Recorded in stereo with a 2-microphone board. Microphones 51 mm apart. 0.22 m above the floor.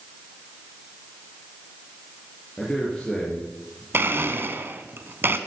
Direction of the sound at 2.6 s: 20° left (ahead or behind).